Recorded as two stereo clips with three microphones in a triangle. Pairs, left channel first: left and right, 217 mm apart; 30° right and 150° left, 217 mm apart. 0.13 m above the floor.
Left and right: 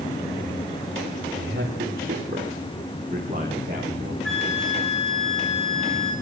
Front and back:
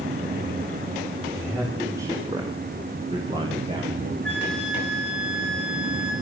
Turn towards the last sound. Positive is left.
turn(degrees=180)